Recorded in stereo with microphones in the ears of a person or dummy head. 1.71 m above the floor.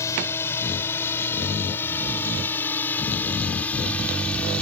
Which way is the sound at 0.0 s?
15° left (ahead or behind).